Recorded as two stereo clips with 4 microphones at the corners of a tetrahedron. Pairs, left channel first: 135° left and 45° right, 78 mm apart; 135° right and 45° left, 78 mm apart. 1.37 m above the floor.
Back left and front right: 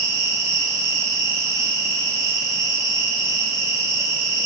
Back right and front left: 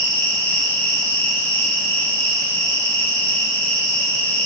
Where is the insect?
80° right, 1.4 m.